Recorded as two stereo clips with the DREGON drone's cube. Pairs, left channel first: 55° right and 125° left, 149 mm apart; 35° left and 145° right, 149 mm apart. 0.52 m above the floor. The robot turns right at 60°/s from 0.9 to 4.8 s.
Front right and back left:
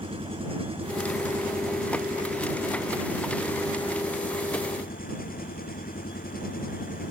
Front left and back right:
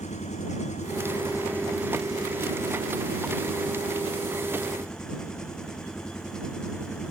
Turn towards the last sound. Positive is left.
turn(degrees=-50)